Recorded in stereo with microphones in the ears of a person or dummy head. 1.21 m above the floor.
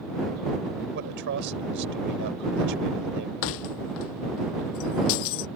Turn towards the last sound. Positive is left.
turn(degrees=65)  # may be behind; listen again after turning